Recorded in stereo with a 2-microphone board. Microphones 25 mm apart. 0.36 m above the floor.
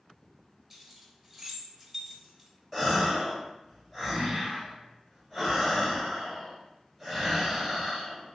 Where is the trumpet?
I don't hear a trumpet.